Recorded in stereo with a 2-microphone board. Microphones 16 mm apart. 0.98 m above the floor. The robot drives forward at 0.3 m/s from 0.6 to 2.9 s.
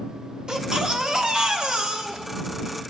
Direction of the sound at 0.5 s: 55° right (ahead or behind).